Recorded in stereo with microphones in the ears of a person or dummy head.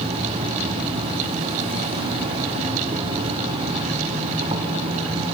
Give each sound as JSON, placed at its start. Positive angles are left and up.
{"t": 0.0, "sound": "an insect", "side_deg": -35, "distance_m": 1.6}